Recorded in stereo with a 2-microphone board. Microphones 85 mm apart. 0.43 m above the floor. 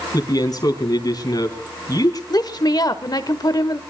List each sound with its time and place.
0.1 s a man speaking: 45° left (ahead or behind), 4 m
2.3 s a woman speaking: 50° left (ahead or behind), 1.3 m